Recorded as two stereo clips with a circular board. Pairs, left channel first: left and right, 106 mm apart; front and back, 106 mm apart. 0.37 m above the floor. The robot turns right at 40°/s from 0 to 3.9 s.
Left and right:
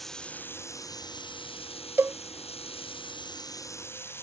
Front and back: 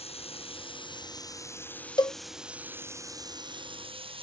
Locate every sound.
0.0 s running water: straight ahead; by 4.2 s 155° left
2.0 s a cowbell: 30° right; by 2.2 s 20° right